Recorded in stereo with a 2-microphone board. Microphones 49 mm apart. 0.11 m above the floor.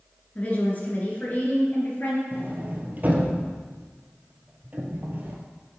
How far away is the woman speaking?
About 1.7 m.